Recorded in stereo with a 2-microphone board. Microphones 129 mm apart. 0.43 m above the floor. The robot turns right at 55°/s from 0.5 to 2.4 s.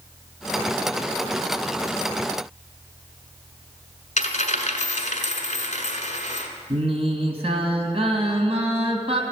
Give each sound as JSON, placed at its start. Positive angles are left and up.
{"t": 4.2, "sound": "a dropped coin", "side_deg": 80, "distance_m": 1.4}
{"t": 6.7, "sound": "singing", "side_deg": -50, "distance_m": 1.8}